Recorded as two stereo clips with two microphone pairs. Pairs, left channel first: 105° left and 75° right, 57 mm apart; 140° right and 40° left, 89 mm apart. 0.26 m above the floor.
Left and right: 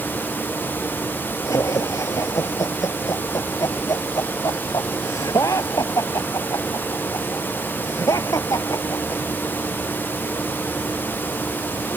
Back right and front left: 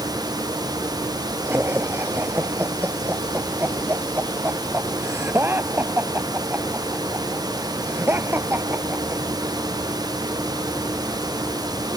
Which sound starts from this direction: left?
Laughter, at 1.4 s.